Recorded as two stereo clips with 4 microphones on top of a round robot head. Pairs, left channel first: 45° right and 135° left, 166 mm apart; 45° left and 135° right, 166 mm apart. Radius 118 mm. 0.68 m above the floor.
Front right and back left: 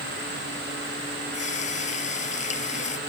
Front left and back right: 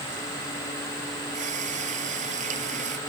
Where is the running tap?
90° right.